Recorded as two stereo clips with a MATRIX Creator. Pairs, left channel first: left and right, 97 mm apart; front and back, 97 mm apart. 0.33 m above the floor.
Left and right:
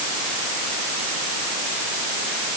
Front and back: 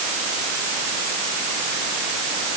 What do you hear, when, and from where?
Only background noise.